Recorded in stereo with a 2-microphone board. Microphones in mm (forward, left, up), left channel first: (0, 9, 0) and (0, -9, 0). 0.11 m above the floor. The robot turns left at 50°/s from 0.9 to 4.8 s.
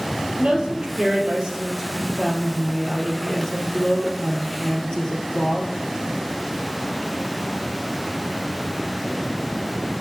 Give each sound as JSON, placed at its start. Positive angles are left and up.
{"t": 0.4, "sound": "a woman speaking", "azimuth_deg": -95, "distance_m": 2.0}